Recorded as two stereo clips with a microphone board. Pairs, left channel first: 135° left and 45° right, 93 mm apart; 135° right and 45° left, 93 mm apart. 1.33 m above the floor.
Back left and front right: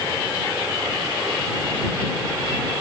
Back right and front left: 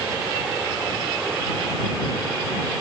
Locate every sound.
Only background noise.